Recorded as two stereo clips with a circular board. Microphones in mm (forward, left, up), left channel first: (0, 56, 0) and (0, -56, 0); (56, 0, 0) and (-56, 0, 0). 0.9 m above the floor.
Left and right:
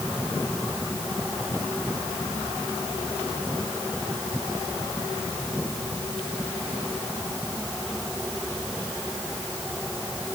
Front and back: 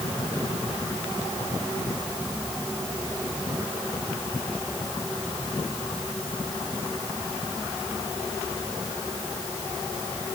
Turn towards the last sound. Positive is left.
No sound to turn to.